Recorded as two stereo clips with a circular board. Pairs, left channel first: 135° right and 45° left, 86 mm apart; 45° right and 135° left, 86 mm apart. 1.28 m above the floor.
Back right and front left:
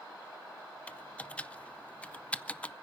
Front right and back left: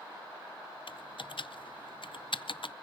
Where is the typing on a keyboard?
60° right, 0.5 m.